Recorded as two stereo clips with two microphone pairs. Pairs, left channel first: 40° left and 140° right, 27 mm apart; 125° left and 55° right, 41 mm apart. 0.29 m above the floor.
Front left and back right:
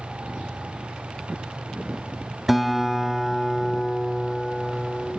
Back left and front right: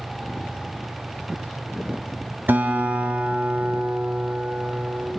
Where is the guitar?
60° right, 0.9 m.